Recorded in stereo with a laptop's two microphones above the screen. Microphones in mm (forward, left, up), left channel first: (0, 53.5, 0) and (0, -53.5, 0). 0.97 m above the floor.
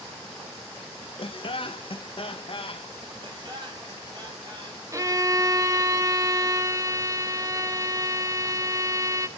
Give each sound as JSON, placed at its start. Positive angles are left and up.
{"t": 1.2, "sound": "laughter", "side_deg": 55, "distance_m": 0.8}
{"t": 3.2, "sound": "laughter", "side_deg": -45, "distance_m": 5.5}
{"t": 4.9, "sound": "a violin", "side_deg": -30, "distance_m": 0.8}